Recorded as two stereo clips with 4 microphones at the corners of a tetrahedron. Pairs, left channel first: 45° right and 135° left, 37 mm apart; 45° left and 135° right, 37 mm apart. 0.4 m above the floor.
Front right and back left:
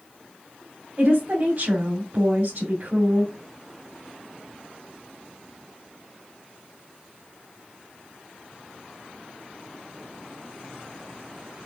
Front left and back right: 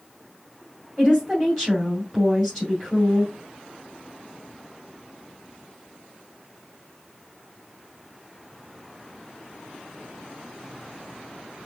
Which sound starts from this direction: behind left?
A woman speaking, at 1.0 s.